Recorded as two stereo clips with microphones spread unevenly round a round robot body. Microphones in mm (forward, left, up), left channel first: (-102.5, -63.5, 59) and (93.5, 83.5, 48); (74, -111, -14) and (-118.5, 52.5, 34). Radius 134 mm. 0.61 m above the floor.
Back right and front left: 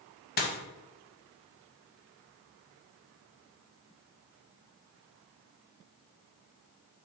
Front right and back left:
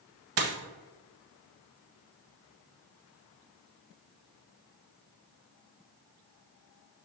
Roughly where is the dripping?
No dripping in this recording.